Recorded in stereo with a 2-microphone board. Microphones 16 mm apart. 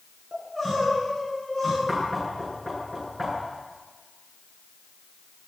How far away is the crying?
About 9.5 m.